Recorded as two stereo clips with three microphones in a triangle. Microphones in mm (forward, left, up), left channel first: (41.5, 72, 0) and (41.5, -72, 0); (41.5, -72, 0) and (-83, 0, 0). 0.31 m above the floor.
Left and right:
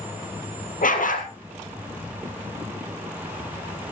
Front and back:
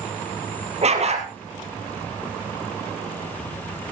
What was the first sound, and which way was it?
A dog barking, 110° left.